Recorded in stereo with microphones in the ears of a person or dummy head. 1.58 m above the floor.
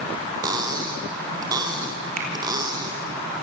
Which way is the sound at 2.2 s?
50° right (ahead or behind).